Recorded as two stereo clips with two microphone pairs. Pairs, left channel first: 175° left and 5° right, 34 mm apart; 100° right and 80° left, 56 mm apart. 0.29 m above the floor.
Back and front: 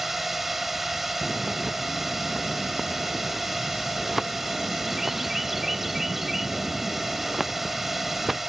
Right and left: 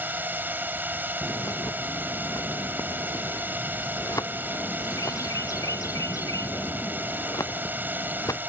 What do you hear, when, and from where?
0.0 s a drone: 75° left
1.2 s a bird: 85° right